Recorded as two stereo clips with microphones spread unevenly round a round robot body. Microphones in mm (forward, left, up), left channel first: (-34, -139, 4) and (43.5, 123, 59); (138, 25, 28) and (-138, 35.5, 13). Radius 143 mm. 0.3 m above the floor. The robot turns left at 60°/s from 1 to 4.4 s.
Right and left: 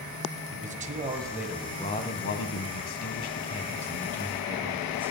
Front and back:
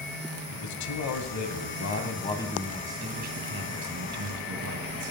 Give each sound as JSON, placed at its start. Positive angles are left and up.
{"t": 0.5, "sound": "a man speaking", "azimuth_deg": 5, "distance_m": 1.8}